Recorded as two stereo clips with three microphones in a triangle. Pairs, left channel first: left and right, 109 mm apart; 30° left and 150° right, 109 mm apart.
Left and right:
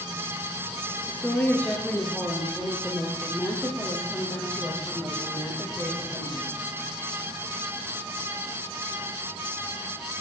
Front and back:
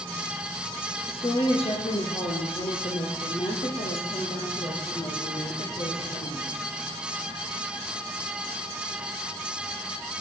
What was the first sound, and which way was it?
A woman speaking, 15° left.